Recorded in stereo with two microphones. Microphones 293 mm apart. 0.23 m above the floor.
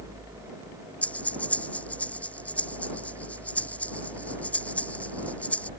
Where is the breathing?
5° left (ahead or behind).